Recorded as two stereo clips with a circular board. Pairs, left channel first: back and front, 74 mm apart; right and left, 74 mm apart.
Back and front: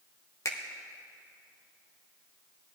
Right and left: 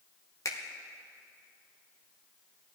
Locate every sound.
0.5 s a finger snap: 135° right, 1.0 m